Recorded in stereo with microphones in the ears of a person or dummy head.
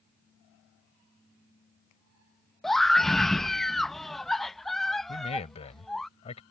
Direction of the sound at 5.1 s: 35° left (ahead or behind).